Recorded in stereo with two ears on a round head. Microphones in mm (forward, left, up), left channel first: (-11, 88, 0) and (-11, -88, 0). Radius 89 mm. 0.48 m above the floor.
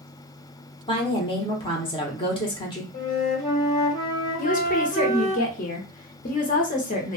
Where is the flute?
40° left (ahead or behind), 1.7 m.